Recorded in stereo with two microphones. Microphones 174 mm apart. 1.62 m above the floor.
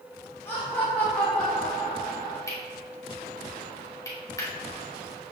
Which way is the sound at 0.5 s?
15° left (ahead or behind).